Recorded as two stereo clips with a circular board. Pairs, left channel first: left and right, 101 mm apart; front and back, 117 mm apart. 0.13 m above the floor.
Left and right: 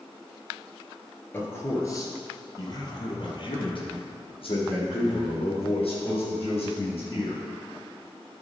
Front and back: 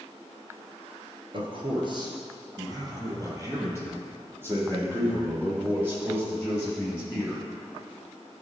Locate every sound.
1.3 s a man speaking: 155° left, 2.0 m; by 7.4 s 105° left, 5.5 m